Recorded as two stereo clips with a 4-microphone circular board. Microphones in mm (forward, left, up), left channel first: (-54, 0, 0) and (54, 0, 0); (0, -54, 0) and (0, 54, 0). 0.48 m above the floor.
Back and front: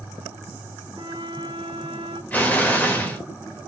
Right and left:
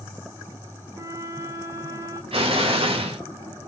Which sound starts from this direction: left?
An explosion, at 2.3 s.